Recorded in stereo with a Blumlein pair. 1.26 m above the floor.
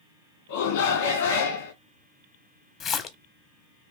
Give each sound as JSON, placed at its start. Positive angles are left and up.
{"t": 0.5, "sound": "a shout", "azimuth_deg": 55, "distance_m": 1.6}
{"t": 2.8, "sound": "a splash", "azimuth_deg": 30, "distance_m": 0.7}